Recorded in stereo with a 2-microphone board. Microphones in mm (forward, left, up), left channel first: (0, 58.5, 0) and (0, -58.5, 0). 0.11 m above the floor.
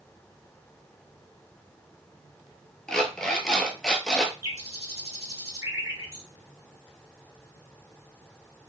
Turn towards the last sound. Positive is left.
turn(degrees=-30)  # may be behind; listen again after turning